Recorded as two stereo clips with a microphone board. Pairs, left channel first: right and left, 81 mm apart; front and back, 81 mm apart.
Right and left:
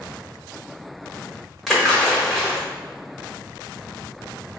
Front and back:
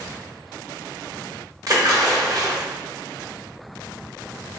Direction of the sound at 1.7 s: 175° right.